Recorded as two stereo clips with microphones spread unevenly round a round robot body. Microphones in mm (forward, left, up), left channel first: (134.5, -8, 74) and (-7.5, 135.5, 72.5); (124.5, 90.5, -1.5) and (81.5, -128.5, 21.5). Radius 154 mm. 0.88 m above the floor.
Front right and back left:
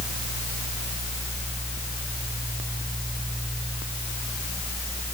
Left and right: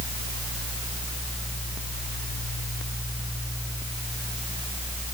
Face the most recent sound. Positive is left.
No sound to turn to.